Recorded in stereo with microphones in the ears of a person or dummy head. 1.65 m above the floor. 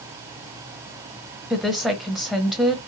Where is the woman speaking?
Centre (ahead or behind), 1.0 m.